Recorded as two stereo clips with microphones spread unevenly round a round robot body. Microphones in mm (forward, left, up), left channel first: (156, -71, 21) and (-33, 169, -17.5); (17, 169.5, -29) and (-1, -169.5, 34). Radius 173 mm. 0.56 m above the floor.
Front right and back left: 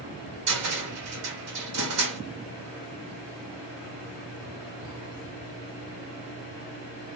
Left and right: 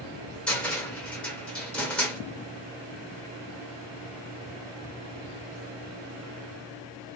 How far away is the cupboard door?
About 1.0 m.